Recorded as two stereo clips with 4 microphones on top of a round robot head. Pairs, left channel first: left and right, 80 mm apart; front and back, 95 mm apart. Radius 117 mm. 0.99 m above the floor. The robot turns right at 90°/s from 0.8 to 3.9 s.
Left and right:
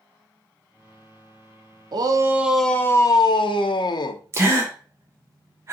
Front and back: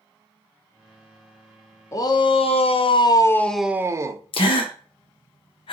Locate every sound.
1.9 s a shout: 60° right, 0.6 m; by 4.2 s 120° left, 0.6 m
4.3 s a gasp: 30° right, 0.6 m